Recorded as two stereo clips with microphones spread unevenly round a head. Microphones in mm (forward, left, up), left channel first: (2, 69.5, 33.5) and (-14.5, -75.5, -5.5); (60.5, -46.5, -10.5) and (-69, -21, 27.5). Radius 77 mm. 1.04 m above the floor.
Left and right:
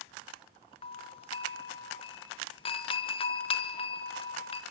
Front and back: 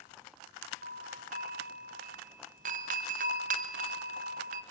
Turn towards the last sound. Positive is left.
turn(degrees=140)